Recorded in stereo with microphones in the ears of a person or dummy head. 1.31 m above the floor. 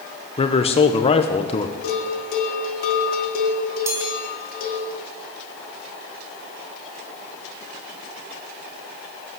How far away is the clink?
No clink in this recording.